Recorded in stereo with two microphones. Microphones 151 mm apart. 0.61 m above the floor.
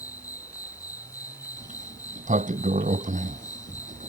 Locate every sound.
0.0 s an insect: 20° left (ahead or behind)
1.6 s a sliding door: 55° right (ahead or behind)